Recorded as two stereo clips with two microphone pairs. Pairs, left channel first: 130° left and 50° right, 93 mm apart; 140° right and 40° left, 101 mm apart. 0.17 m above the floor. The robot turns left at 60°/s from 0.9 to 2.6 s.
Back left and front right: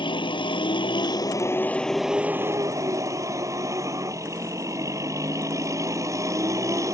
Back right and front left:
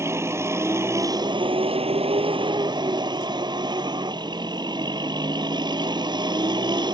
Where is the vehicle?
105° left; by 7.0 s straight ahead.